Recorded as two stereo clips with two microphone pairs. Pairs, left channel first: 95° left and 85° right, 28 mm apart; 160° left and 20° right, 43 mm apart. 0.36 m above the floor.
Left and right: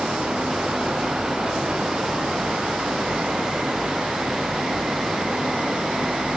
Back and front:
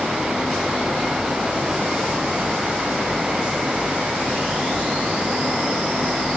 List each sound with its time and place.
Only background noise.